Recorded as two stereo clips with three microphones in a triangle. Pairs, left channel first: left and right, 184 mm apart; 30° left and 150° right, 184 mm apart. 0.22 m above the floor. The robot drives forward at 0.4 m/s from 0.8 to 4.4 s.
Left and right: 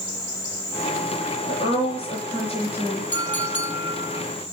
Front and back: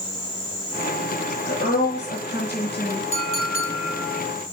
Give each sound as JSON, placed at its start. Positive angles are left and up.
{"t": 1.5, "sound": "a woman speaking", "azimuth_deg": 35, "distance_m": 4.0}
{"t": 3.1, "sound": "a clink", "azimuth_deg": 85, "distance_m": 4.0}